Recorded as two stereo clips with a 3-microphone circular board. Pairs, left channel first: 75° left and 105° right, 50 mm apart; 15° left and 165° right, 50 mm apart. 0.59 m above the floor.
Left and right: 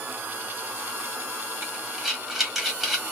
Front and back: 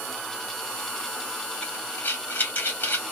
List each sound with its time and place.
1.6 s breathing: 20° right, 1.3 m